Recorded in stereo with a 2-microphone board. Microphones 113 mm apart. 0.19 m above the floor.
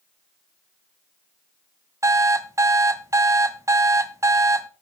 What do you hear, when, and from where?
2.0 s an alarm clock: 25° right (ahead or behind), 0.7 m